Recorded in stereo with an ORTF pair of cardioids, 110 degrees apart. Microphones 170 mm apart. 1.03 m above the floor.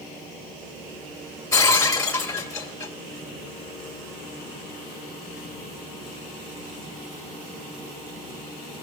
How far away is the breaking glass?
About 2 m.